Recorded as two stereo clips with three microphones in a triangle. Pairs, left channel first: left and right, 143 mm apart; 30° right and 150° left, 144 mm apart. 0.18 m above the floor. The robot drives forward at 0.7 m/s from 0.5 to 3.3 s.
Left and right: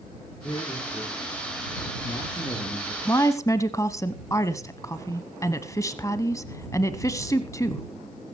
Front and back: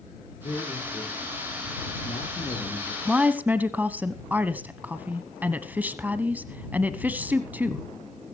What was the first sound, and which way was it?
A man speaking, 20° left.